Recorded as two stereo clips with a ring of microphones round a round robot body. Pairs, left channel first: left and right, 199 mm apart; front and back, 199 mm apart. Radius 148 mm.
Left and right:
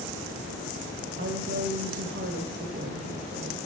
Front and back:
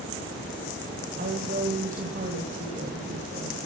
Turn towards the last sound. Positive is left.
turn(degrees=-130)